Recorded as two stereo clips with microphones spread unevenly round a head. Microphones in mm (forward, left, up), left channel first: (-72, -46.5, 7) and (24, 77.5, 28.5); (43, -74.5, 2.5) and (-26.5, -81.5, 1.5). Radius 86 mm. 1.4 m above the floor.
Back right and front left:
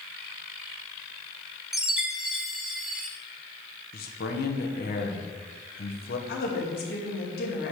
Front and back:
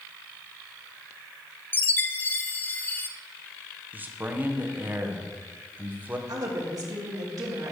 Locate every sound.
1.7 s a chime: 15° right, 0.5 m
3.9 s a man speaking: 110° right, 1.3 m
6.3 s a woman speaking: 150° right, 2.5 m